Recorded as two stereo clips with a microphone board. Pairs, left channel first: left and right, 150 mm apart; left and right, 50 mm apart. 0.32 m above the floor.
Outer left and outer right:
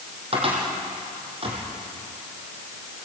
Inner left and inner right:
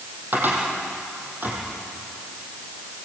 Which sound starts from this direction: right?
A cupboard door, at 0.3 s.